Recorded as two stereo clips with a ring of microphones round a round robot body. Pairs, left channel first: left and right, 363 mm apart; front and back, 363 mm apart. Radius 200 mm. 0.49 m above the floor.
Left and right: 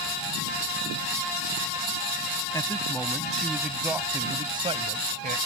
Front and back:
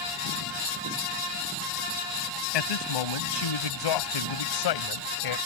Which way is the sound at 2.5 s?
10° left.